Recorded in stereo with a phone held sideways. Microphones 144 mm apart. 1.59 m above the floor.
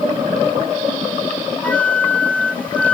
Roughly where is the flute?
Centre.